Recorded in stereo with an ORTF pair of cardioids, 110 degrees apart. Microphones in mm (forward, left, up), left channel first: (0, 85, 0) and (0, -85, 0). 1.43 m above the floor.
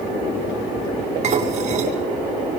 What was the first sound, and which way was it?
Dishes clattering, 45° right.